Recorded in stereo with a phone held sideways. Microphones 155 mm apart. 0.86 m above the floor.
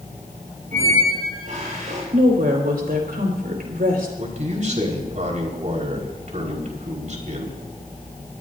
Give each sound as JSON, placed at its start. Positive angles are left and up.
{"t": 0.7, "sound": "a squeak", "side_deg": -60, "distance_m": 9.0}
{"t": 2.1, "sound": "a woman speaking", "side_deg": -75, "distance_m": 4.5}
{"t": 4.2, "sound": "a man speaking", "side_deg": -55, "distance_m": 4.5}